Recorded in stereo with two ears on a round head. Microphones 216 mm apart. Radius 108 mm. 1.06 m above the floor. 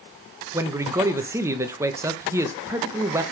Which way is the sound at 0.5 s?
10° right (ahead or behind).